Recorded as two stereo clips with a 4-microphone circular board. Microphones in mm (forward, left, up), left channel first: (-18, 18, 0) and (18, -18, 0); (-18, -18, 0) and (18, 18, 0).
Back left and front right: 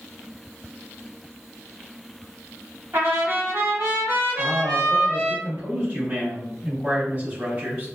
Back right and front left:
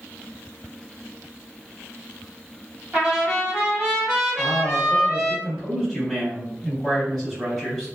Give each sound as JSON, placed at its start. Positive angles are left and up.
{"t": 2.9, "sound": "a trumpet", "azimuth_deg": -30, "distance_m": 1.7}
{"t": 4.4, "sound": "a man speaking", "azimuth_deg": -45, "distance_m": 1.7}